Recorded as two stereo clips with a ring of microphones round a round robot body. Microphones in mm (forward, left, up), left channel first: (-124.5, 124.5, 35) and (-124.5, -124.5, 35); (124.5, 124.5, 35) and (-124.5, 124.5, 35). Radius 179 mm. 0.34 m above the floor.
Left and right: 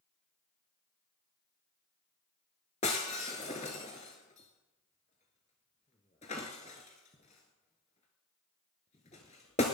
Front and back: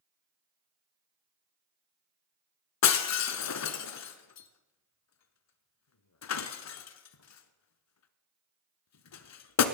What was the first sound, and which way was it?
Breaking glass, 20° left.